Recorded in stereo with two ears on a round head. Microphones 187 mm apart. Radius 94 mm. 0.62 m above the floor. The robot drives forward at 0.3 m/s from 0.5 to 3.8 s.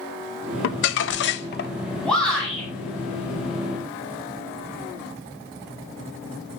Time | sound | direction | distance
0.6 | crumpling | 65° left (ahead or behind) | 0.7 m
2.0 | a shout | 5° left (ahead or behind) | 6 m